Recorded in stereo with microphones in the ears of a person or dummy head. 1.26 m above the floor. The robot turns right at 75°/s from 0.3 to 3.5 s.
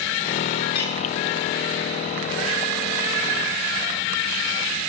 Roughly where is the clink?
Left.